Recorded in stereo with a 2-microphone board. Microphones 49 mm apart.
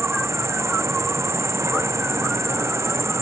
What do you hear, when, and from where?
0.0 s an insect: 70° right (ahead or behind)